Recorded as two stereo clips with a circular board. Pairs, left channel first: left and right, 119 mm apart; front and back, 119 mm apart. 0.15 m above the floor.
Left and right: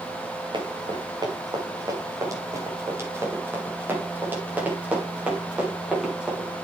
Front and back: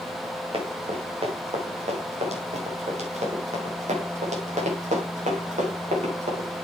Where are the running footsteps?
140° right, 4 m; by 6.5 s 175° right, 6 m.